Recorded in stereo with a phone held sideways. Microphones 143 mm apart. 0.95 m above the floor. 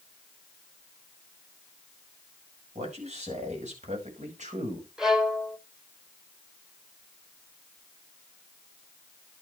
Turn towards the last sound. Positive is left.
turn(degrees=-5)  # may be behind; listen again after turning